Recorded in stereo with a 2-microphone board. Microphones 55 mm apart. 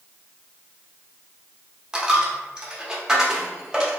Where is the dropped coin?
15° right (ahead or behind), 0.6 m.